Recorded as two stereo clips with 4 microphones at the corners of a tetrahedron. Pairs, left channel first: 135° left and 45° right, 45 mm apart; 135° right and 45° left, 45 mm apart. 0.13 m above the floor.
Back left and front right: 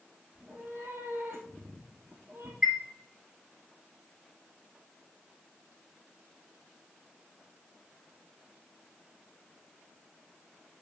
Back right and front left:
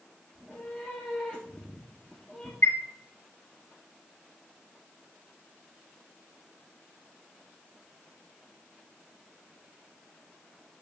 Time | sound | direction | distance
0.3 | a cat meowing | 70° right | 1.7 m
2.6 | a chime | 120° right | 3 m